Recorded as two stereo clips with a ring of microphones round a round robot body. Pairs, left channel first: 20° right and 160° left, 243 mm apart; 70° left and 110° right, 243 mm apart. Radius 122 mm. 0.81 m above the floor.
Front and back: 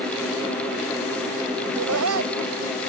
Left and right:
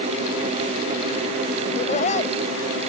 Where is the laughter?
130° left.